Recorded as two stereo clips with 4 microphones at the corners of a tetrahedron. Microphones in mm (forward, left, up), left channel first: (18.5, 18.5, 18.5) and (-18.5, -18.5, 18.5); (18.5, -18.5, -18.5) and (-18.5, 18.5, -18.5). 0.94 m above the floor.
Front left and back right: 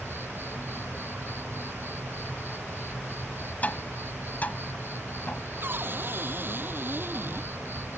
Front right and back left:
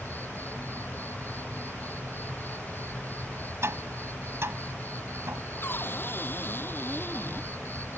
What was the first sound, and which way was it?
An insect, 95° right.